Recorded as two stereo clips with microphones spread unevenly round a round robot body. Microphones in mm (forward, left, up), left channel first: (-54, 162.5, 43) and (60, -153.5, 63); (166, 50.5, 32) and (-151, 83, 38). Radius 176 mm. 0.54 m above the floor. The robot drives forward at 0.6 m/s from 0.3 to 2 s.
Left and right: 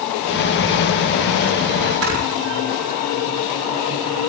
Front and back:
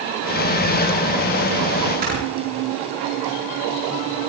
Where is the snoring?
120° right, 8 m.